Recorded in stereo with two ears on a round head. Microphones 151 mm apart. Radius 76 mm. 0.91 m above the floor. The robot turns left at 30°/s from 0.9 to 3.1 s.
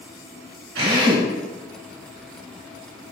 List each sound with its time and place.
0.8 s a drill: 85° right, 3 m; by 1.3 s 80° right, 3 m